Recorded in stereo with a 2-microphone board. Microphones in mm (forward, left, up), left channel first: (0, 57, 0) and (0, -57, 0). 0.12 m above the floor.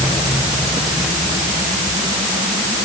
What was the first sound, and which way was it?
Only background noise.